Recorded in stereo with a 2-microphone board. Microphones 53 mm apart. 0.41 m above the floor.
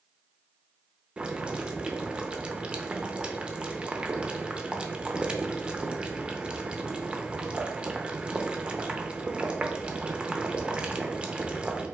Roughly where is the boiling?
Centre.